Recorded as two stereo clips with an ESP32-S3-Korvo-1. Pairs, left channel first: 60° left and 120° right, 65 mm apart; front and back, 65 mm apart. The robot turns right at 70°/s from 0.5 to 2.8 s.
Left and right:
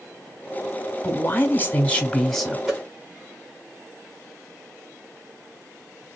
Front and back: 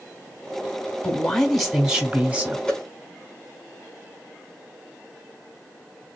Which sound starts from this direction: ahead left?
A man speaking, at 1.0 s.